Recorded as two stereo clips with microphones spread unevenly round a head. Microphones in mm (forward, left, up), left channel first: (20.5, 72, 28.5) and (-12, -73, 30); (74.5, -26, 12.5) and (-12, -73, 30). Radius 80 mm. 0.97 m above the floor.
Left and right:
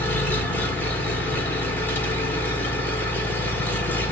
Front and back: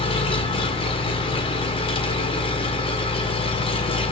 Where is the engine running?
Straight ahead, 1.6 m.